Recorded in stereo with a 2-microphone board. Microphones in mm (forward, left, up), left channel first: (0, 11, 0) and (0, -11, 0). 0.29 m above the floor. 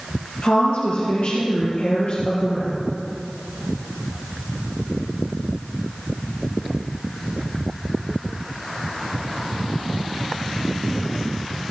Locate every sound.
0.4 s a woman speaking: 60° left (ahead or behind), 5 m; by 2.7 s 45° left (ahead or behind), 5 m